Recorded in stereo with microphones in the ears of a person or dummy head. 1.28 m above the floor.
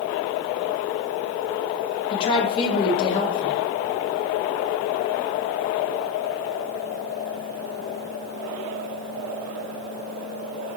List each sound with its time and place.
2.1 s a woman speaking: 30° left (ahead or behind), 1.9 m